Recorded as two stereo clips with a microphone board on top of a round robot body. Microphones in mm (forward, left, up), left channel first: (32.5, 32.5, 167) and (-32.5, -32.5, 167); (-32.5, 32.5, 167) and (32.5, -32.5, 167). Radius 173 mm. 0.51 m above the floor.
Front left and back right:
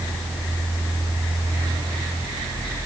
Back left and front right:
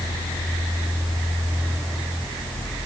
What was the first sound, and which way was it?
Only background noise.